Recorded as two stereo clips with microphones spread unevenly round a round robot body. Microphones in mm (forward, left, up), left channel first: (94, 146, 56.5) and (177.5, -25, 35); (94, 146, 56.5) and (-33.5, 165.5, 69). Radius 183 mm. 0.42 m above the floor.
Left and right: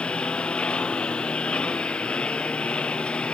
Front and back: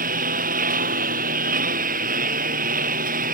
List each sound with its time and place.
0.0 s a lawn mower: 155° right